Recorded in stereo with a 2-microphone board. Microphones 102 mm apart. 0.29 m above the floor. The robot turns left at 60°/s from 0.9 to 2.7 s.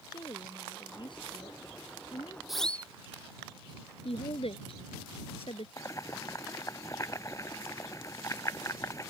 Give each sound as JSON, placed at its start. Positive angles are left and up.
{"t": 0.1, "sound": "a woman speaking", "azimuth_deg": 135}
{"t": 2.5, "sound": "a siren", "side_deg": 0}
{"t": 4.0, "sound": "a woman speaking", "side_deg": 70}
{"t": 5.8, "sound": "boiling", "side_deg": 30}